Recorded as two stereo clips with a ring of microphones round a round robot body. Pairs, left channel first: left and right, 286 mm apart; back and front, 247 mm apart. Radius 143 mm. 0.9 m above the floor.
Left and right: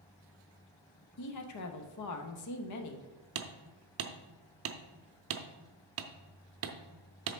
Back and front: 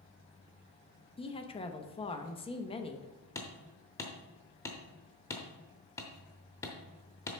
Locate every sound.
1.2 s a woman speaking: 110° left, 1.0 m
3.4 s hammering: 105° right, 0.6 m